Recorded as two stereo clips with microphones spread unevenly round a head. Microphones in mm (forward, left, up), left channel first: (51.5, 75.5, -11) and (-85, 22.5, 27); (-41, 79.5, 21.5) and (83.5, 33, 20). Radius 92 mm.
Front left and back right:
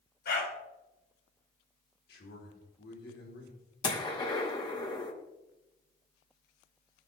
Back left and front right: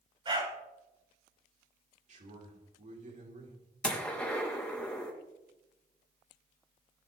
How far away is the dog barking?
About 5 m.